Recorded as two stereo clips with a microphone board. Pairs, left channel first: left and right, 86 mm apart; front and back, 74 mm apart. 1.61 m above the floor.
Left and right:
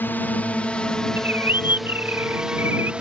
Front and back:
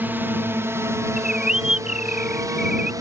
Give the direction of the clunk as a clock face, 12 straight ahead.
No clunk in this recording.